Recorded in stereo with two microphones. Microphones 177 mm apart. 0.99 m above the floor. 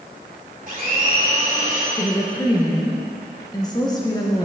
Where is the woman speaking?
20° left (ahead or behind), 0.8 m.